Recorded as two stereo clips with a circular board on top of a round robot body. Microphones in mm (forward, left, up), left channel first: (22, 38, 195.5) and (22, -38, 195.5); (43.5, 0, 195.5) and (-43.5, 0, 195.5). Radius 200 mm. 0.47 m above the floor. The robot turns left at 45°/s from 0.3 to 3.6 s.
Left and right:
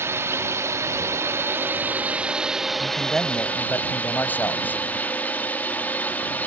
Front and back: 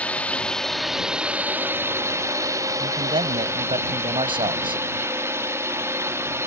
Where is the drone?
65° right; by 6.5 s 145° left.